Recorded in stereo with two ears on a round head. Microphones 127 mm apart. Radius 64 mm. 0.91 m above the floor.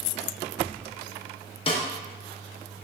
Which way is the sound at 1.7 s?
40° left (ahead or behind).